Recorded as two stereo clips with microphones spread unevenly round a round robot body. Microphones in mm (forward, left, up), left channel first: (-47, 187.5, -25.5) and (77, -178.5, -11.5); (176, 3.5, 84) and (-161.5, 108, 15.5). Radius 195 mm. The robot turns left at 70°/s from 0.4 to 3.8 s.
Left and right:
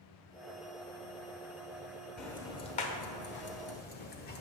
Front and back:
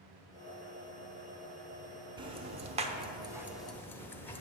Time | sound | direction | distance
2.2 | ticking | 165° right | 0.7 m